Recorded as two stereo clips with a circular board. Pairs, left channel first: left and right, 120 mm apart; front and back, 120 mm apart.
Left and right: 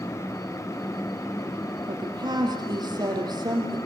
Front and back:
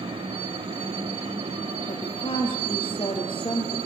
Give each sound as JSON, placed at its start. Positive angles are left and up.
{"t": 1.9, "sound": "a woman speaking", "azimuth_deg": -40, "distance_m": 4.5}